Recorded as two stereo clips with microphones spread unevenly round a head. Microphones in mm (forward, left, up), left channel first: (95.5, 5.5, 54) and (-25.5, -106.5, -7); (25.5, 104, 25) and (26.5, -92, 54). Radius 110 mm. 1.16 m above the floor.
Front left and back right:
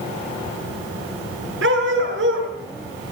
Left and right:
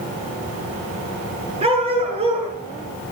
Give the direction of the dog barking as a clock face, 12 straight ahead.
5 o'clock.